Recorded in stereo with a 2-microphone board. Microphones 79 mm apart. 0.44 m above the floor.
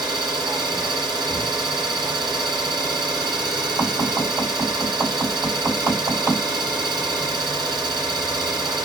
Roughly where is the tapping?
Right.